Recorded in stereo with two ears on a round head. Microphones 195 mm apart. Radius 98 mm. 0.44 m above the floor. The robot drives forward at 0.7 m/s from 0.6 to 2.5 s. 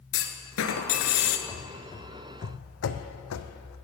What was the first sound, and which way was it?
A clunk, 65° left (ahead or behind).